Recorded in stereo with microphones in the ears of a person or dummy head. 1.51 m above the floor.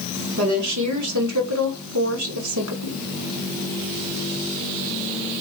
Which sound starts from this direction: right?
A woman speaking, at 0.4 s.